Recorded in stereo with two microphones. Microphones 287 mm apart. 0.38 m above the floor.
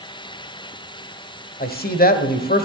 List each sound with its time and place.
1.6 s a man speaking: 30° left (ahead or behind), 1.4 m